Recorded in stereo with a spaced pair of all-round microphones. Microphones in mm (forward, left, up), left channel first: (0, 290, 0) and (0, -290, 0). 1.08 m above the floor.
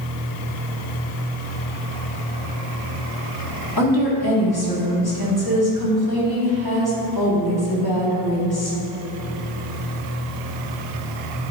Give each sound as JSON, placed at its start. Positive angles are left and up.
{"t": 3.8, "sound": "a woman speaking", "side_deg": 40, "distance_m": 2.0}